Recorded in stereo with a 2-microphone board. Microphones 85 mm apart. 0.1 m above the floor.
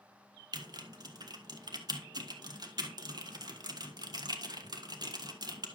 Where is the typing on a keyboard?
50° right (ahead or behind), 1.4 m.